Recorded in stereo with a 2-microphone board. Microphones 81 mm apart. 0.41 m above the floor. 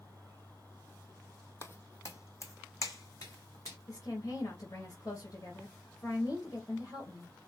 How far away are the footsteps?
About 0.6 m.